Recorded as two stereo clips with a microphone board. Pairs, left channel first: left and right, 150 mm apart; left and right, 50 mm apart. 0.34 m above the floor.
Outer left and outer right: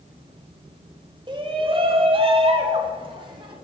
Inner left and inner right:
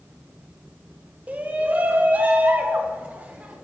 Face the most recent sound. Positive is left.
turn(degrees=-30)  # may be behind; listen again after turning